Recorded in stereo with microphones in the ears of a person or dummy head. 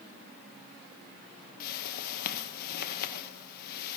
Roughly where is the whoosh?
Left.